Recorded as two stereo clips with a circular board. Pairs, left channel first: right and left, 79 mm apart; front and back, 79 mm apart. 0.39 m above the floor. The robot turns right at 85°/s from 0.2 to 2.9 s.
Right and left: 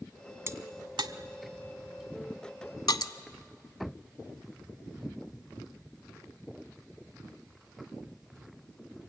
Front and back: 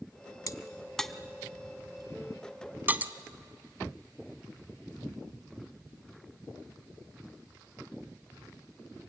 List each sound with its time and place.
0.5 s a crack: 35° left, 0.8 m; by 3.1 s 115° right, 0.8 m